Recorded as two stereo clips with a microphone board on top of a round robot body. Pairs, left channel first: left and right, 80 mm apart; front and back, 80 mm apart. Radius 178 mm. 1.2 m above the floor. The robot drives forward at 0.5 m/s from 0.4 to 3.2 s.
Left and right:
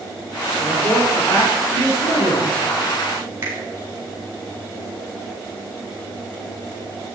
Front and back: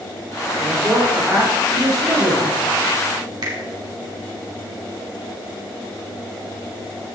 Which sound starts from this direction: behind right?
A finger snap, at 3.4 s.